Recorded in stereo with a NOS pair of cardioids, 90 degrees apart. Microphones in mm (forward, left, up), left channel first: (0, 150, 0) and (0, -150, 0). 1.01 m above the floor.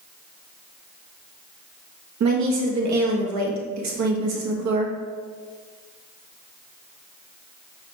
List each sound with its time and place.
2.2 s a woman speaking: 70° right, 1.1 m